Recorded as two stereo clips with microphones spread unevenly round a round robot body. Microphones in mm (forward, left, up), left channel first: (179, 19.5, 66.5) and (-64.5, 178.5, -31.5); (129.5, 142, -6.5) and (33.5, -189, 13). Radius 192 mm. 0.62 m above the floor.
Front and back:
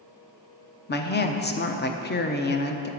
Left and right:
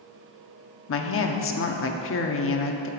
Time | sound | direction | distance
0.9 | a woman speaking | 35° left | 0.8 m